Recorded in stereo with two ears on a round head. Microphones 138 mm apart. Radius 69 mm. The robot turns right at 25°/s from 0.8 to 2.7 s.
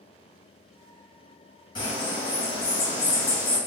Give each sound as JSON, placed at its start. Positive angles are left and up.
{"t": 1.8, "sound": "a bird", "side_deg": 30, "distance_m": 1.5}